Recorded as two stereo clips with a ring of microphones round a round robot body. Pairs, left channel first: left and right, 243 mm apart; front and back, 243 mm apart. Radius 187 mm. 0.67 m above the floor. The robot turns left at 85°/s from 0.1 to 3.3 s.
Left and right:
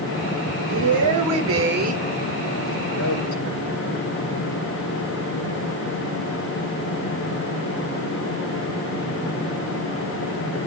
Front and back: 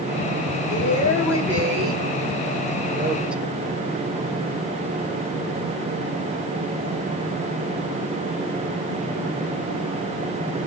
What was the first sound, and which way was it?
A woman speaking, 45° right.